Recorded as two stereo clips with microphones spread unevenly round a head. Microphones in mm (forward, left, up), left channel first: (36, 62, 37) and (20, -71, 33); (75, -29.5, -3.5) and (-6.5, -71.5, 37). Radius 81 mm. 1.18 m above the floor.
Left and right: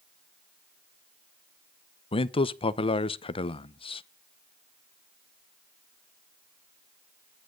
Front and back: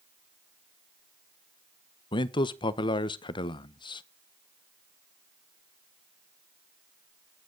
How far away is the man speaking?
About 0.9 m.